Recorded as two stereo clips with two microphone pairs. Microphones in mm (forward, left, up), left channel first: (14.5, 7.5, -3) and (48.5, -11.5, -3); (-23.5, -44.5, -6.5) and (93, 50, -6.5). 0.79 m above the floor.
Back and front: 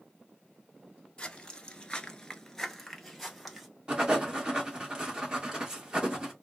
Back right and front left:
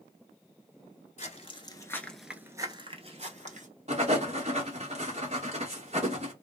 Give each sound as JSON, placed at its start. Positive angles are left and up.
{"t": 1.2, "sound": "footsteps", "azimuth_deg": -145, "distance_m": 1.0}
{"t": 3.9, "sound": "writing", "azimuth_deg": 25, "distance_m": 1.4}